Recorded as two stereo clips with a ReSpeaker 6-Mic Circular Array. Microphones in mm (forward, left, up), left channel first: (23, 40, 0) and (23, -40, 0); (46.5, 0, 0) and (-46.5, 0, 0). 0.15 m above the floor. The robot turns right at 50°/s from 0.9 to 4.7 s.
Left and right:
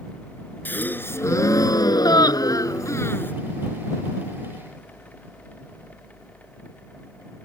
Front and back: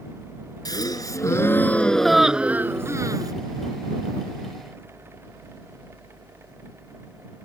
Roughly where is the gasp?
Ahead left.